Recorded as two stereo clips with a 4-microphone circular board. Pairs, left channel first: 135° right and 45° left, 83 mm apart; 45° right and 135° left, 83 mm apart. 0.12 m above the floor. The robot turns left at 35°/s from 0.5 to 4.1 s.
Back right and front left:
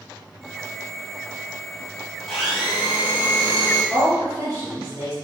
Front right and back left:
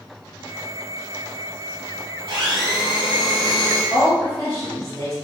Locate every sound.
2.3 s a blender: 140° left, 1.2 m; by 3.8 s 85° left, 1.2 m
3.9 s a woman speaking: 40° left, 1.4 m; by 5.2 s 35° left, 1.4 m